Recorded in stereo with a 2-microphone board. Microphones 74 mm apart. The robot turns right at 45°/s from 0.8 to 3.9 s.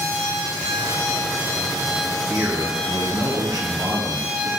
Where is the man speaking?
165° right, 3.5 m; by 4.5 s 95° right, 3.5 m.